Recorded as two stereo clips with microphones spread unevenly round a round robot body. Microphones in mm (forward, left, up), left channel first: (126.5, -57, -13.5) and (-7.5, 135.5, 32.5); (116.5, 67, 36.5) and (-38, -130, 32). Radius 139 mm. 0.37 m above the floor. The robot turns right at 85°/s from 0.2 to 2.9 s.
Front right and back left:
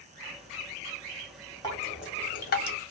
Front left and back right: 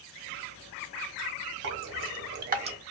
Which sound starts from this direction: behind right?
Dripping, at 1.6 s.